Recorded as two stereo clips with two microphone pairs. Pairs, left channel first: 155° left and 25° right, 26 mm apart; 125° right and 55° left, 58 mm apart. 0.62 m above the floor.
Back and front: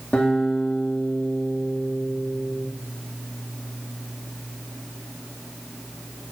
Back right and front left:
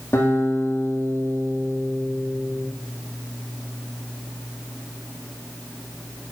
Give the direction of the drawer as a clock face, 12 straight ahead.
I don't hear a drawer.